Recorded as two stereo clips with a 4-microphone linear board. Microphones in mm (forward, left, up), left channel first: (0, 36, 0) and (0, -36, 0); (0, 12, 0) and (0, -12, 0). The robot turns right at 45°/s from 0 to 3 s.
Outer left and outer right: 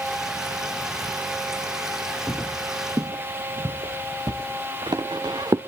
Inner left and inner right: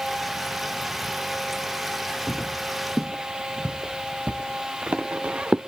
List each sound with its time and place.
2.3 s footsteps: 5° right (ahead or behind), 2.5 m; by 5.6 s 70° right (ahead or behind), 1.8 m